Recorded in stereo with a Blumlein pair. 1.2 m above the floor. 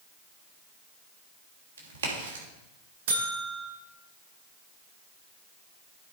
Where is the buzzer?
55° right, 2.5 m.